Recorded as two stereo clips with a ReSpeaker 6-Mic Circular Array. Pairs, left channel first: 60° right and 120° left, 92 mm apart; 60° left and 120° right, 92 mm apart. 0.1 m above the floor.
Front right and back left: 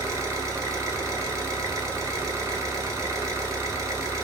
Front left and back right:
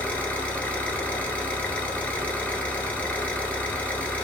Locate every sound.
0.0 s an engine running: 120° left, 0.8 m